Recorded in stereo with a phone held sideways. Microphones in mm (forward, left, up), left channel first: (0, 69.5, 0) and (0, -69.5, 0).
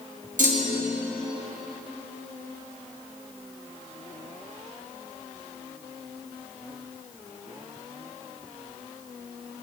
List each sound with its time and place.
0.4 s a clunk: 65° right (ahead or behind), 0.8 m